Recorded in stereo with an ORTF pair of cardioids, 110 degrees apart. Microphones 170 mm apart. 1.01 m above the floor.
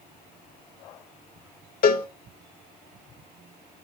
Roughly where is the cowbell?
Ahead left.